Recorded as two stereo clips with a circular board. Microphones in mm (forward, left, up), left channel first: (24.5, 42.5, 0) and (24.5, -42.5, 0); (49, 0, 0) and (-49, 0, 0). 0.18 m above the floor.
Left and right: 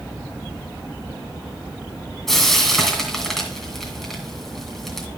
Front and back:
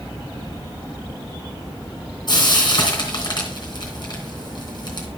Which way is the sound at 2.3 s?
5° left.